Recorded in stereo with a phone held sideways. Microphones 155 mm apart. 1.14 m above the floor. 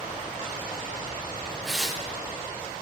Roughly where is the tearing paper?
Centre.